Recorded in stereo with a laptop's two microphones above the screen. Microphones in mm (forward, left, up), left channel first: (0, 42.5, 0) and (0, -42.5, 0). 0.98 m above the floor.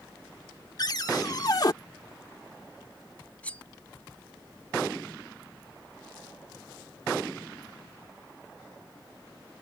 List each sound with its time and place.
0.8 s a cupboard door: 50° left (ahead or behind)
3.4 s cutlery clinking: 15° left (ahead or behind)